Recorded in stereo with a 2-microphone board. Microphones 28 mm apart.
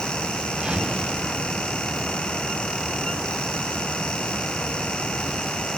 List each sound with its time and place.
0.5 s a whoosh: 45° right (ahead or behind), 6 m